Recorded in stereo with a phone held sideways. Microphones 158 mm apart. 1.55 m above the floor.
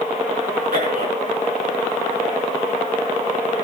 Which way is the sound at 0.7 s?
75° right (ahead or behind).